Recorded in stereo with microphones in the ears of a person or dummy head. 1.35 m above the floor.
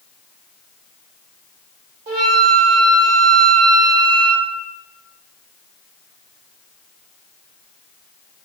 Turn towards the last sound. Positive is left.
turn(degrees=-35)  # may be behind; listen again after turning